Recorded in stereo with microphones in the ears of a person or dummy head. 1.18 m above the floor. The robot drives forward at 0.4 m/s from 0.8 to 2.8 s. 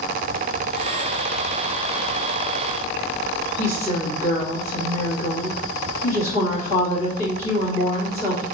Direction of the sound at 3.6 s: 45° left (ahead or behind).